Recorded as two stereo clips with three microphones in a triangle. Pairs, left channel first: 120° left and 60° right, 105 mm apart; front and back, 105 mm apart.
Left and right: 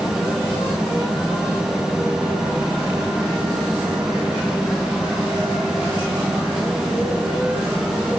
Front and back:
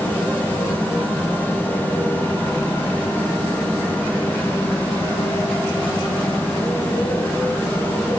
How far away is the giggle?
No giggle in this recording.